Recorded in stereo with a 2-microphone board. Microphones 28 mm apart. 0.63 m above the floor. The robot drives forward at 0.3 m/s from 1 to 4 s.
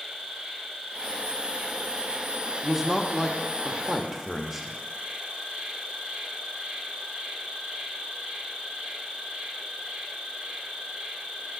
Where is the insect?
40° right (ahead or behind), 1.7 m; by 11.6 s 65° right (ahead or behind), 1.3 m.